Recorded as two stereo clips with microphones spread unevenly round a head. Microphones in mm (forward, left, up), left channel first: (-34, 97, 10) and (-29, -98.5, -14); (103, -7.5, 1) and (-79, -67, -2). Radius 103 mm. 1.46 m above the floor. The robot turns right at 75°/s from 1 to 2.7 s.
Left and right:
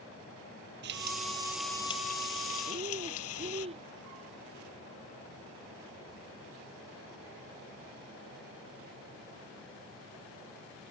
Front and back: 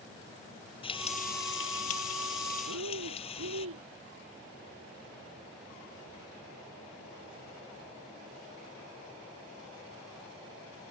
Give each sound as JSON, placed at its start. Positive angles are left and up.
{"t": 0.8, "sound": "frying", "azimuth_deg": -45}
{"t": 2.7, "sound": "breathing", "azimuth_deg": -155}